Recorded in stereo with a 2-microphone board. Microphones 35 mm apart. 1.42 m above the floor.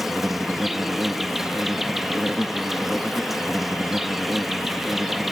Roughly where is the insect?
Centre.